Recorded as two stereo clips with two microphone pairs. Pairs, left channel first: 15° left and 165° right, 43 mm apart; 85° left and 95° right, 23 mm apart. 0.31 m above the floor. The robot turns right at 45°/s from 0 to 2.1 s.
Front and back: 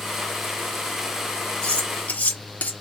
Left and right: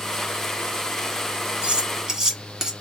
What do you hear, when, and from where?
1.6 s cutlery clinking: 50° right, 1.5 m; by 2.7 s 30° right, 1.5 m